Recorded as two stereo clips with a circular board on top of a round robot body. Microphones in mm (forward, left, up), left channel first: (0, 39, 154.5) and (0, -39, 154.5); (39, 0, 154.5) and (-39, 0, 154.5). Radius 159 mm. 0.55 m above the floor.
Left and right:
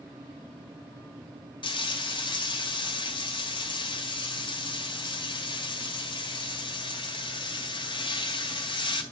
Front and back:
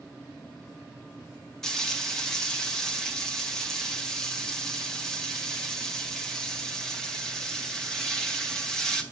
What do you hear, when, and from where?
1.6 s frying: 85° left, 2 m